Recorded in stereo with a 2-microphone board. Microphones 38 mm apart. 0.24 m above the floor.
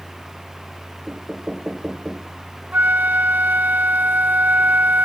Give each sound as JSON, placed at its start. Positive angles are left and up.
{"t": 1.1, "sound": "knocking", "side_deg": -20}
{"t": 2.7, "sound": "a flute", "side_deg": -55}